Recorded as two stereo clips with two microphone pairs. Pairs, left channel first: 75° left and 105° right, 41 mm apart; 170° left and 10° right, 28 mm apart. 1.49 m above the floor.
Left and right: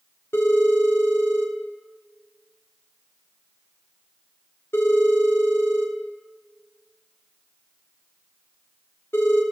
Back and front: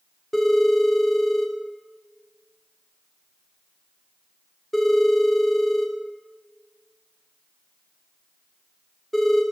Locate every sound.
0.3 s a phone ringing: 80° left, 2.5 m